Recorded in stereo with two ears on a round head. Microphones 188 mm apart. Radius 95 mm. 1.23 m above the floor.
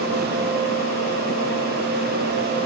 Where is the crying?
No crying in this recording.